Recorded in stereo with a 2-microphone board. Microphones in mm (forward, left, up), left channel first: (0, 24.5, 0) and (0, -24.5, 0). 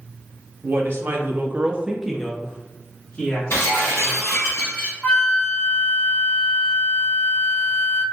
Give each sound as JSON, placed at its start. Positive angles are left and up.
{"t": 0.6, "sound": "a woman speaking", "side_deg": -50, "distance_m": 0.8}
{"t": 3.5, "sound": "breaking glass", "side_deg": 60, "distance_m": 1.8}
{"t": 5.0, "sound": "a flute", "side_deg": 20, "distance_m": 1.3}